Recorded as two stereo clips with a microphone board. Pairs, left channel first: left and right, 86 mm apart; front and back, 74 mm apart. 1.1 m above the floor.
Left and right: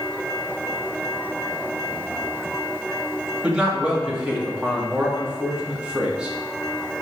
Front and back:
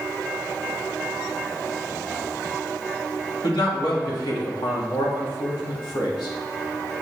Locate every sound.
3.4 s a man speaking: 10° right, 1.9 m